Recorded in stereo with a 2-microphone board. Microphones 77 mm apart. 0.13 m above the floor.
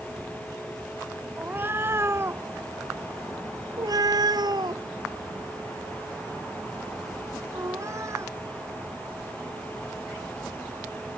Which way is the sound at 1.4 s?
25° right (ahead or behind).